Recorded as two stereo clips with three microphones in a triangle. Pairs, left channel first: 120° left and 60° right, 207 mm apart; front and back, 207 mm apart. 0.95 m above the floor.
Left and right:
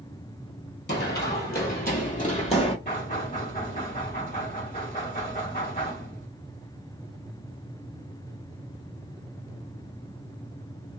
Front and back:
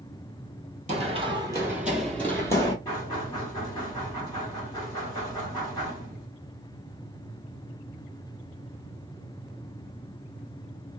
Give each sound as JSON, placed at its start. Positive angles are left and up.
{"t": 0.9, "sound": "running footsteps", "azimuth_deg": 130, "distance_m": 1.6}
{"t": 2.9, "sound": "knocking", "azimuth_deg": 75, "distance_m": 1.7}